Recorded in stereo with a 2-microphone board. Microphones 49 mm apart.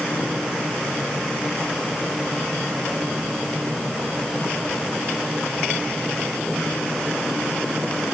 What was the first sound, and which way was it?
Only background noise.